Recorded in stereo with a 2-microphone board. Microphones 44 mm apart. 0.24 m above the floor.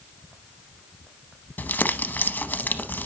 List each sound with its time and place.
1.6 s crumpling: 50° left (ahead or behind), 0.7 m